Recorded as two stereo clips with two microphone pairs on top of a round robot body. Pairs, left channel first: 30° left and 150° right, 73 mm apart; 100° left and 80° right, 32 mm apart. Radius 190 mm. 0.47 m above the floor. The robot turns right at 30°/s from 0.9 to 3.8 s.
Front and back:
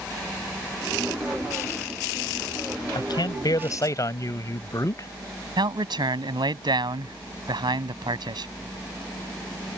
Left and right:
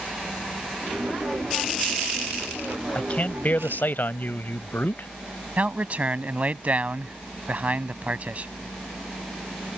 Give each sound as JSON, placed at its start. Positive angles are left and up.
{"t": 3.0, "sound": "a man speaking", "azimuth_deg": 50}
{"t": 5.6, "sound": "a man speaking", "azimuth_deg": -125}